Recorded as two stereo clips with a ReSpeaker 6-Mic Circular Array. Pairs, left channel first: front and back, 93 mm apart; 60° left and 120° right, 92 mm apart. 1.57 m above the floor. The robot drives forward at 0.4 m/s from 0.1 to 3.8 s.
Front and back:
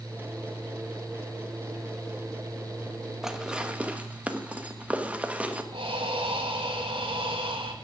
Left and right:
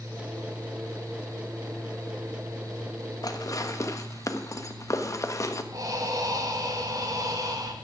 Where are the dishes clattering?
95° left, 1.2 m; by 5.6 s 110° left, 1.3 m.